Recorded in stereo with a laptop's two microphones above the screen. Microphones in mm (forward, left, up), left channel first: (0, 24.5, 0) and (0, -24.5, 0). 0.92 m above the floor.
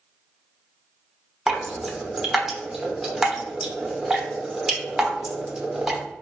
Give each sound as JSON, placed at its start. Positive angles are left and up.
{"t": 1.5, "sound": "dripping", "side_deg": -5, "distance_m": 0.7}